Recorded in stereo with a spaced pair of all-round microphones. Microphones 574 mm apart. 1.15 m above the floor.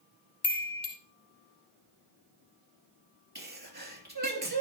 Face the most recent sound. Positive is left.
turn(degrees=-30)  # may be behind; listen again after turning